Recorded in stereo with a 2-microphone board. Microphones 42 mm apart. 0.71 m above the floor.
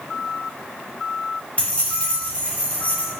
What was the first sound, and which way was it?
Keys jangling, 30° left (ahead or behind).